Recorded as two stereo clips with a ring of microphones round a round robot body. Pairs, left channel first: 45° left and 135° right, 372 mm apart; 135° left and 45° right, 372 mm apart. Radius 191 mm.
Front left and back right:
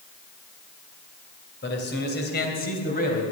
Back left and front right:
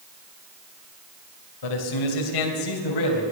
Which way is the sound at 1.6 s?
105° left.